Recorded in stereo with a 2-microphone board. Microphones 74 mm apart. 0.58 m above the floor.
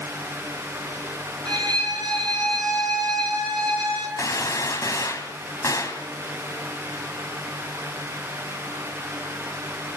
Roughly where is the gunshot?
Left.